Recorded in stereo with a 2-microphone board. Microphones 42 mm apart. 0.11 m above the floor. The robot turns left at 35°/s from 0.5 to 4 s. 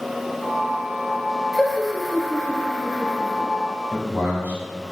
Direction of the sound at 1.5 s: Centre (ahead or behind).